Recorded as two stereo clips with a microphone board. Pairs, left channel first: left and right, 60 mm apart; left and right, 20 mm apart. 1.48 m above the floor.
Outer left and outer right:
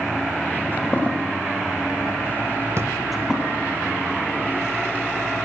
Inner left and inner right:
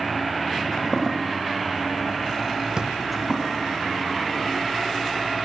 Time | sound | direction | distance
0.6 | footsteps | 35° left (ahead or behind) | 2.0 m
2.8 | a drawer | 45° right (ahead or behind) | 0.7 m